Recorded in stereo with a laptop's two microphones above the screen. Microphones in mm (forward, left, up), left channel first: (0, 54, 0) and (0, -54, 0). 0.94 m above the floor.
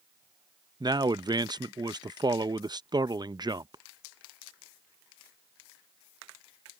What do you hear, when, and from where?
0.8 s a man speaking: 40° right (ahead or behind)